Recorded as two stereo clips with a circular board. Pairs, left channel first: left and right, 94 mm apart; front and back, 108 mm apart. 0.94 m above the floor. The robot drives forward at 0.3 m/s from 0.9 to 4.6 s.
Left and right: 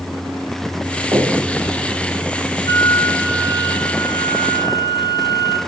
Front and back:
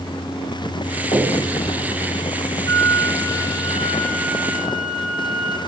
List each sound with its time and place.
1.1 s a finger snap: 30° right, 4 m
2.7 s a flute: 45° left, 0.9 m; by 5.6 s 105° left, 0.8 m